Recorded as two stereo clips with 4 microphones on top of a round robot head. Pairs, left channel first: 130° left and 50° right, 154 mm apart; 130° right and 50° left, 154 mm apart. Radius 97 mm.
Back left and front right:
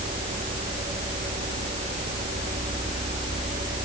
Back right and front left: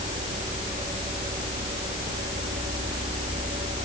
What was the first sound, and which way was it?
Only background noise.